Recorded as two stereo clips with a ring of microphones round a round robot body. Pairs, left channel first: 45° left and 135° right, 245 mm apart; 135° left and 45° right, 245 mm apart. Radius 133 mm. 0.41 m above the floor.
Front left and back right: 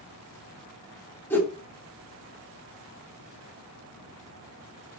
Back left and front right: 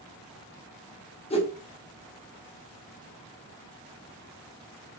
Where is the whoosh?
115° left, 1.0 m.